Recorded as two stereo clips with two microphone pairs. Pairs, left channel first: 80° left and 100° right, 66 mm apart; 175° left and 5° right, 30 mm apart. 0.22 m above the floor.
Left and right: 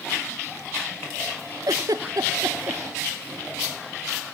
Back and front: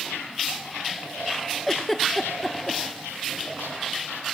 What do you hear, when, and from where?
1.7 s a giggle: 95° right, 1.0 m